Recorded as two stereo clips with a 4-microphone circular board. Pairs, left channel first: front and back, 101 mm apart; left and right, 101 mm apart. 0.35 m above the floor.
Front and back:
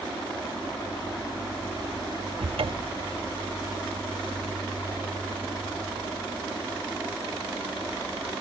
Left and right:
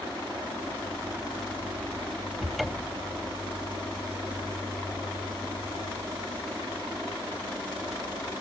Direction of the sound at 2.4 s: Straight behind.